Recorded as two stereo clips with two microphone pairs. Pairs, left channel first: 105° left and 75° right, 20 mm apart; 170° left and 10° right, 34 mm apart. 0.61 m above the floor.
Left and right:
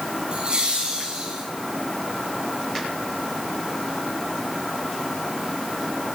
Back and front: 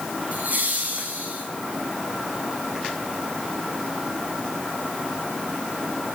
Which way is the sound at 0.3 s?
45° right.